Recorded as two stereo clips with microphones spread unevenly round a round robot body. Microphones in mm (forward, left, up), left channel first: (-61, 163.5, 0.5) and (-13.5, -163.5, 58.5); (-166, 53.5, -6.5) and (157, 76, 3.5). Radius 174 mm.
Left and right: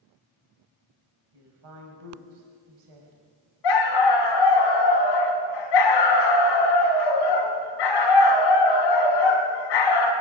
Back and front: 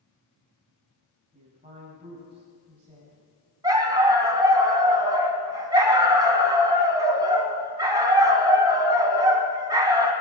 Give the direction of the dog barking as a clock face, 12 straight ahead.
9 o'clock.